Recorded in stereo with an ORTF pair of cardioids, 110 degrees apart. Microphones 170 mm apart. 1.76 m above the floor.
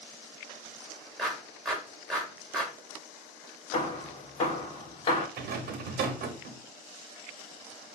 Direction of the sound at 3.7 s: 35° left.